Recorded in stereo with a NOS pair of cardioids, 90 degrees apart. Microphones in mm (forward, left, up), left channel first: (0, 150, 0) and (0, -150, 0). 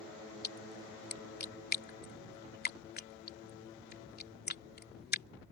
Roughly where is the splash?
Ahead left.